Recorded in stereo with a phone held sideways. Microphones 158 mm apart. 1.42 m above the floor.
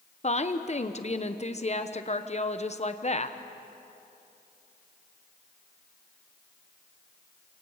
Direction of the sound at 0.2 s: 45° left (ahead or behind).